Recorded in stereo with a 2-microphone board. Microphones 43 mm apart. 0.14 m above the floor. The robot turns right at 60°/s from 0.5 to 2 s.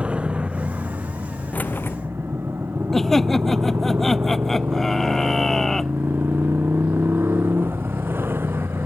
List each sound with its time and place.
0.0 s a motorcycle: 150° right; by 8.9 s 60° right
1.5 s keys jangling: 40° left (ahead or behind); by 2.0 s 65° left (ahead or behind)
2.9 s laughter: 5° left (ahead or behind)